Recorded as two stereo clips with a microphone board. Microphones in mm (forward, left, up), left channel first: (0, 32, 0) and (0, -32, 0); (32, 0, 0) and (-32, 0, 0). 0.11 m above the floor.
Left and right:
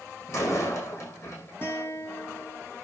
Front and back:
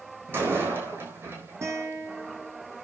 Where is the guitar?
140° left, 4 m.